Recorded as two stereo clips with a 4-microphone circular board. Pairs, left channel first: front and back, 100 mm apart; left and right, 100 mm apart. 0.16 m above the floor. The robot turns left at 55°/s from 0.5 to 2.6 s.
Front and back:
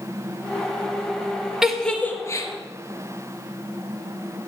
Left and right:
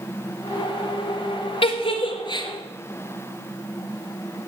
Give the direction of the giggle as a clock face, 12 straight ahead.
9 o'clock.